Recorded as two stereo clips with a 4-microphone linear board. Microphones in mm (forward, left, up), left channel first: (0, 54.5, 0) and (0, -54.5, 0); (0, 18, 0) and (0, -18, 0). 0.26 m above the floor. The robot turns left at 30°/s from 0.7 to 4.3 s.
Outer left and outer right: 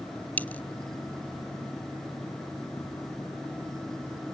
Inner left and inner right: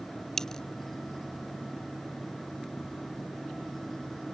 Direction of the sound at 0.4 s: 15° left (ahead or behind).